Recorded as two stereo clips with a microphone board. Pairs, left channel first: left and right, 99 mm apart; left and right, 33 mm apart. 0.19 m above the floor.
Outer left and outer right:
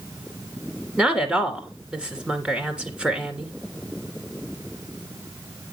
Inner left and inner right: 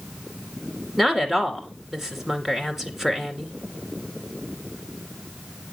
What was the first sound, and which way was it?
A woman speaking, 10° right (ahead or behind).